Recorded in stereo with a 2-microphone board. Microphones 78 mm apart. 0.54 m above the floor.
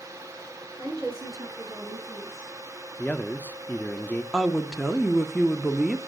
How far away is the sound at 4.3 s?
About 1.1 m.